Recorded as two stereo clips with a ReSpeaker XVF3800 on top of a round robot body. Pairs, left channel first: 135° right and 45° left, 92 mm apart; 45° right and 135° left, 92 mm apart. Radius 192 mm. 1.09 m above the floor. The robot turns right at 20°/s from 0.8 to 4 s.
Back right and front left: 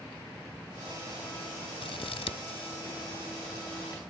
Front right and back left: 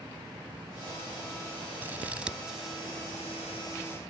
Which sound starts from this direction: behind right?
Scissors, at 1.8 s.